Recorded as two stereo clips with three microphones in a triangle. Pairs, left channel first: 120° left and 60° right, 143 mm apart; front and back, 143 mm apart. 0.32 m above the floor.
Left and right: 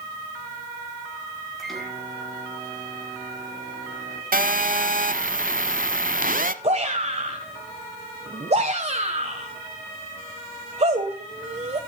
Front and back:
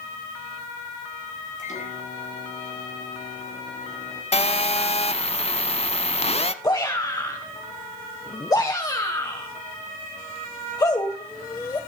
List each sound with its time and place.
1.6 s a microwave: 30° left, 4.5 m
4.3 s a phone buzzing: 45° right, 0.8 m
6.6 s a shout: 55° right, 1.3 m